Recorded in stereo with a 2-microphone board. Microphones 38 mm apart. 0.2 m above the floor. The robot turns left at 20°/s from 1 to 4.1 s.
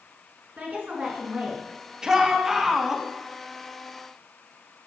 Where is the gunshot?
I don't hear a gunshot.